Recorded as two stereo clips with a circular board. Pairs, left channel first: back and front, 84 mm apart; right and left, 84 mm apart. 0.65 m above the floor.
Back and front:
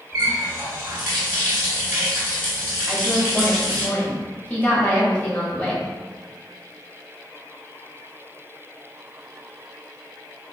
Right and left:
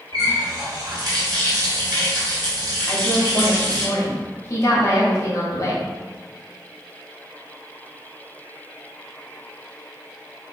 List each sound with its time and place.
0.1 s a running tap: 55° left, 1.8 m
2.9 s a woman speaking: 115° right, 1.3 m